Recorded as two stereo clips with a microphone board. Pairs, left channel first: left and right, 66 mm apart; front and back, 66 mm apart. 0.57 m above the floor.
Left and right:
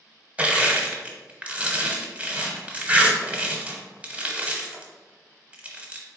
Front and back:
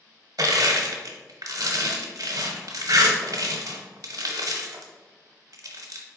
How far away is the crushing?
About 0.9 m.